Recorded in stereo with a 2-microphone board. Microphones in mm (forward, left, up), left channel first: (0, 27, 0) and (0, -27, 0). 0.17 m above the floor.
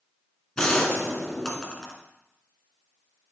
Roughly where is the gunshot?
Centre.